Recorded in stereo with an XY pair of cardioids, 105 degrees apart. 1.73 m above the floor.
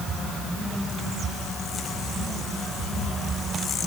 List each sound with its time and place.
Only background noise.